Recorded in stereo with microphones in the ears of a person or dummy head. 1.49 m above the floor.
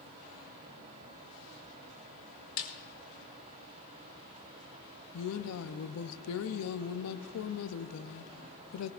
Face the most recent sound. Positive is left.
turn(degrees=85)